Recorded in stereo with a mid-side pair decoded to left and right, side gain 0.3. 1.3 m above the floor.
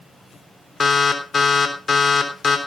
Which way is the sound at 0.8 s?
50° left.